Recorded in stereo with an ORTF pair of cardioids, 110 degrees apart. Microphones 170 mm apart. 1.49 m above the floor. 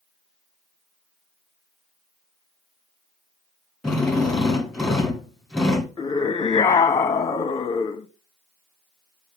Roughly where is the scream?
Ahead.